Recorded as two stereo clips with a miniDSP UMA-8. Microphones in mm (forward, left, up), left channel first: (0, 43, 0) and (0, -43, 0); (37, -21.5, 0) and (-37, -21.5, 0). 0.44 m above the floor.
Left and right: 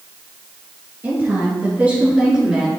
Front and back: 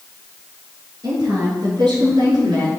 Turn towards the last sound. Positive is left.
turn(degrees=-165)